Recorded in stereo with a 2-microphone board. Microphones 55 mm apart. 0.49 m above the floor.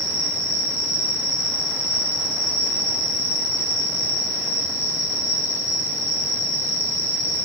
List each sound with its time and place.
0.0 s an insect: 85° left, 2 m